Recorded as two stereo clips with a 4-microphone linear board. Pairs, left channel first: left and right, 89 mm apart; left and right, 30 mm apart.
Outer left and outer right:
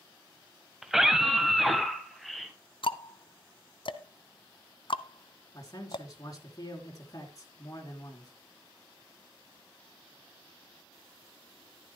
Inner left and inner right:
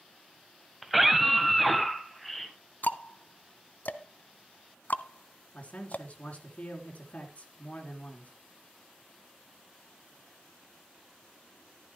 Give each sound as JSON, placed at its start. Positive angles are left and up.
{"t": 0.8, "sound": "a scream", "side_deg": -5, "distance_m": 1.3}
{"t": 2.8, "sound": "ticking", "side_deg": 65, "distance_m": 0.7}
{"t": 5.5, "sound": "a man speaking", "side_deg": 40, "distance_m": 3.5}